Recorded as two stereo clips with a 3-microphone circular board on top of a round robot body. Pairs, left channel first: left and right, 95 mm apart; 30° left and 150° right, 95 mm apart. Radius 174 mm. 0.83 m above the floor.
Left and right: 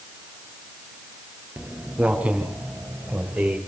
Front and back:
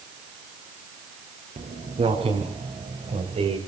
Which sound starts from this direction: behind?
Footsteps, at 1.6 s.